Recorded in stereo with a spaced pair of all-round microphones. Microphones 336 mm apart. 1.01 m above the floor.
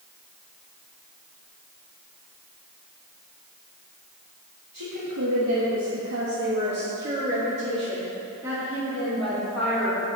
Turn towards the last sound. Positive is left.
turn(degrees=5)  # may be behind; listen again after turning